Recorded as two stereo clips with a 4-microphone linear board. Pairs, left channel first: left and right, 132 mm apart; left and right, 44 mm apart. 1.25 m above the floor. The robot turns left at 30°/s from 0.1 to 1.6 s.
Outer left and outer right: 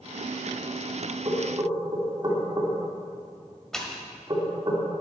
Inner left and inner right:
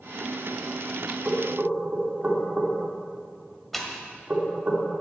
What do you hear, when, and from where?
1.2 s knocking: 45° right (ahead or behind), 2 m; by 4.7 s 35° right (ahead or behind), 2 m
3.7 s a pop: 5° left (ahead or behind), 1.5 m